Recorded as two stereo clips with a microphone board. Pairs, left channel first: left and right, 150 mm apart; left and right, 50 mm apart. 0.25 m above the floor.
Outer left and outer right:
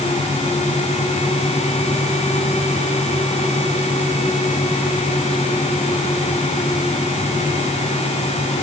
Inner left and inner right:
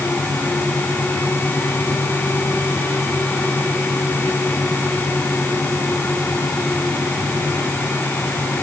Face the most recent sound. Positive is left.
No sound to turn to.